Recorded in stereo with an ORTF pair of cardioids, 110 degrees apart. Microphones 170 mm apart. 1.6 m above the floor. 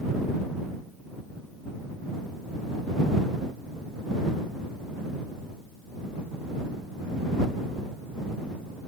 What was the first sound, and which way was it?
Only background noise.